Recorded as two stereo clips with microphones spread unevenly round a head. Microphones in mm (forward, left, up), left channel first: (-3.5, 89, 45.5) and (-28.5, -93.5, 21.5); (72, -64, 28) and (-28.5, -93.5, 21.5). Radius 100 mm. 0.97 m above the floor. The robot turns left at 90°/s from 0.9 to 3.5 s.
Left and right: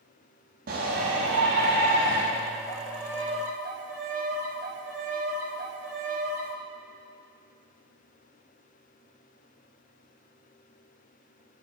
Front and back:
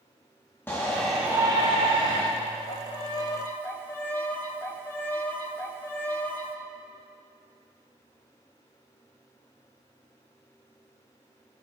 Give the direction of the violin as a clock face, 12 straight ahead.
11 o'clock.